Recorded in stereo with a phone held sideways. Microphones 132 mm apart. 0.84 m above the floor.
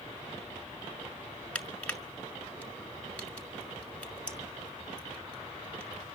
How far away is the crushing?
About 1.8 m.